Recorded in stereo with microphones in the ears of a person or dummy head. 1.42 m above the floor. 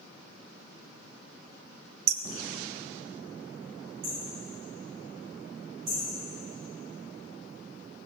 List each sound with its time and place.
2.1 s hammering: 55° right (ahead or behind), 1.0 m
4.0 s hammering: 75° right (ahead or behind), 7 m